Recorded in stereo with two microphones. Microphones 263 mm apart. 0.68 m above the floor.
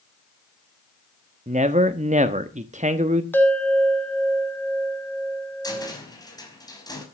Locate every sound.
1.5 s a man speaking: 25° right (ahead or behind), 1.0 m
3.3 s a bell: 5° left (ahead or behind), 2.5 m
5.6 s a cupboard door: 15° left (ahead or behind), 5 m